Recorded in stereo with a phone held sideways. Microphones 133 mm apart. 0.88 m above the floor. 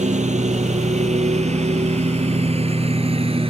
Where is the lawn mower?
60° right (ahead or behind); by 3.5 s 45° right (ahead or behind).